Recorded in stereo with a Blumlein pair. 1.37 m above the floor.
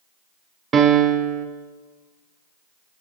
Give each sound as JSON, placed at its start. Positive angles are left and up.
{"t": 0.7, "sound": "a piano", "azimuth_deg": -25, "distance_m": 0.5}